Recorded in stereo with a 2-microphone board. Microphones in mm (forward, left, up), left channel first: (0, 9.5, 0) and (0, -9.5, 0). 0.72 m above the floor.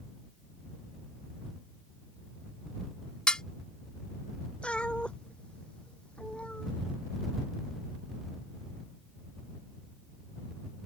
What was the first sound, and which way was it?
Dishes clattering, 45° left (ahead or behind).